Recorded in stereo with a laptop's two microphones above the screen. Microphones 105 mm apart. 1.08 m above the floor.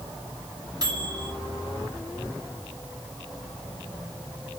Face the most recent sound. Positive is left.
turn(degrees=-40)  # may be behind; listen again after turning